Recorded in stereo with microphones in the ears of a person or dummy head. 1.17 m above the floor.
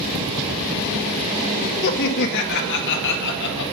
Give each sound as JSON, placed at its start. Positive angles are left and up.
{"t": 1.8, "sound": "laughter", "side_deg": 60, "distance_m": 1.7}